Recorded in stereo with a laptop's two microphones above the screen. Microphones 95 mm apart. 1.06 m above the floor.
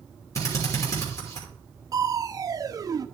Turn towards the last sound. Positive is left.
turn(degrees=-40)  # may be behind; listen again after turning